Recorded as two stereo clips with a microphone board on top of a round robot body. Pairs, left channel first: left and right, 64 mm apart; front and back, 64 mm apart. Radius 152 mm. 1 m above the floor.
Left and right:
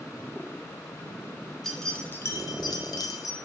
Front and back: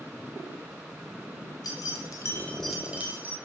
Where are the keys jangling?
5° left, 0.9 m; by 3.4 s 125° left, 1.0 m.